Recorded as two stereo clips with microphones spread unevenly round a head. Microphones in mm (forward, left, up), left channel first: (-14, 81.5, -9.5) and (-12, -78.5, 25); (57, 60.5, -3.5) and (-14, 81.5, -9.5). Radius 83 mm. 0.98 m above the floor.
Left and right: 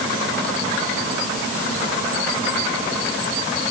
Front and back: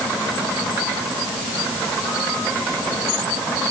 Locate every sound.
Only background noise.